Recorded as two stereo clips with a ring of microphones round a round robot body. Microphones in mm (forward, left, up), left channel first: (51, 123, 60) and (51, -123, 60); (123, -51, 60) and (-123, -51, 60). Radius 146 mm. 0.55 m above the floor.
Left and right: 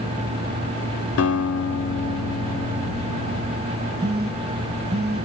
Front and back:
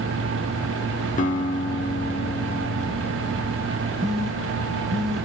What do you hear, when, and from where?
1.2 s a guitar: 60° left, 1.2 m
4.0 s a phone buzzing: 90° right, 1.4 m